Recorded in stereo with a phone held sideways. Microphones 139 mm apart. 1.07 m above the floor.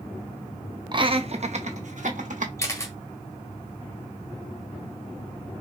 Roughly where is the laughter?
Right.